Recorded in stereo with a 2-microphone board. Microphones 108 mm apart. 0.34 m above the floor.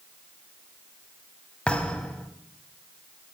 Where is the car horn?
No car horn in this recording.